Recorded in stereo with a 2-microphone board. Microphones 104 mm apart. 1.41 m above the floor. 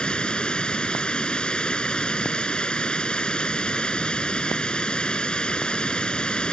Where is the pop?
No pop in this recording.